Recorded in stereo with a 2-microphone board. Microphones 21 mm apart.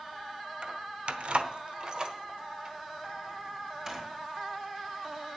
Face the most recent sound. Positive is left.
turn(degrees=-25)  # may be behind; listen again after turning